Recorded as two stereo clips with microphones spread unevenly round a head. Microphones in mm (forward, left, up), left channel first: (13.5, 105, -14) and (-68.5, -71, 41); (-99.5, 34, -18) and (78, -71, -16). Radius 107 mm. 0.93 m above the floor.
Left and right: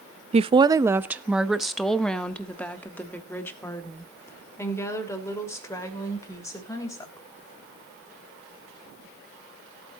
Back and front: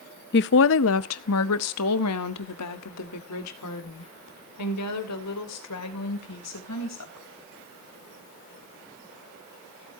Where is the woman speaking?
Straight behind, 0.5 m; by 7.2 s 140° left, 4 m.